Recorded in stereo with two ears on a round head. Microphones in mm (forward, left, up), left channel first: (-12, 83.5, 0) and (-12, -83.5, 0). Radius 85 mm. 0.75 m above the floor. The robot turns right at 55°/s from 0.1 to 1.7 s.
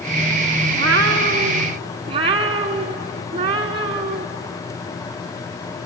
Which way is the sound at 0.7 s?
85° right.